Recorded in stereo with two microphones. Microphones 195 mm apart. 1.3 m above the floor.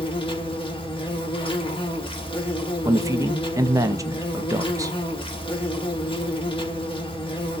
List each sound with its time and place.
0.0 s an insect: 30° left (ahead or behind), 0.8 m
2.9 s a man speaking: 15° right (ahead or behind), 0.6 m